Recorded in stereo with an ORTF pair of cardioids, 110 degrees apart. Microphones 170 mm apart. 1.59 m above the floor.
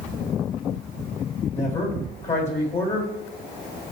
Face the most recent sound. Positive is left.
turn(degrees=40)